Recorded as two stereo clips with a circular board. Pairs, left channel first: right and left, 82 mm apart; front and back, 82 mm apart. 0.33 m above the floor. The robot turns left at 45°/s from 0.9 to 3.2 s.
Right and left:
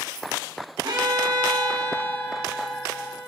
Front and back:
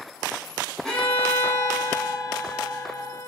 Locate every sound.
0.8 s a violin: 80° left, 6 m; by 3.3 s 20° right, 6 m